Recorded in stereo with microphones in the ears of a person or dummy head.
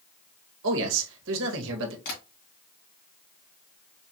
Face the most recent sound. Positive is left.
turn(degrees=55)  # may be behind; listen again after turning